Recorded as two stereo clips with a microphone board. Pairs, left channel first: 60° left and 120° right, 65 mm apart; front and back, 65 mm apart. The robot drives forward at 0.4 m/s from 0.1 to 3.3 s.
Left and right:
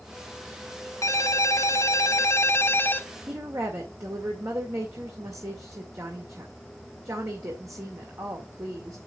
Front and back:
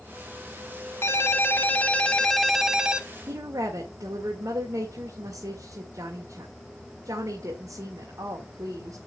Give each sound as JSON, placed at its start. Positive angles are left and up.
{"t": 1.0, "sound": "a ringtone", "azimuth_deg": 40, "distance_m": 0.9}
{"t": 3.3, "sound": "a woman speaking", "azimuth_deg": -155, "distance_m": 1.9}